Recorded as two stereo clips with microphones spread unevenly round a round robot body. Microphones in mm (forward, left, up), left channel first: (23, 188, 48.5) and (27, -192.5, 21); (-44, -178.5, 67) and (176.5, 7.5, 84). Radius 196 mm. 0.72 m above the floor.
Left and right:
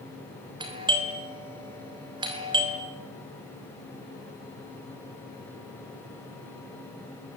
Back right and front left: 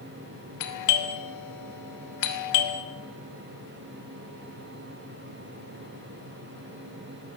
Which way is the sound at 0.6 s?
165° right.